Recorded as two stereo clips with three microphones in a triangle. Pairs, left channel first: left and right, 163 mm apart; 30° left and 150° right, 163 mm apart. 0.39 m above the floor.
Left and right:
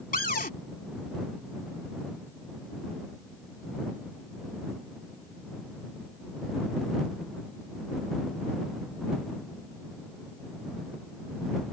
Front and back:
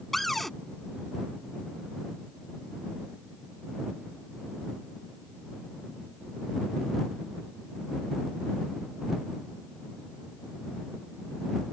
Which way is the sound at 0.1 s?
120° left.